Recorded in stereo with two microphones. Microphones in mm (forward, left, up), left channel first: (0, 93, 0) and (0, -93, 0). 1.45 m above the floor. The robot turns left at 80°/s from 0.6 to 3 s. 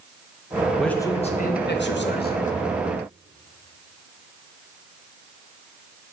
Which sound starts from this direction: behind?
A man speaking, at 0.8 s.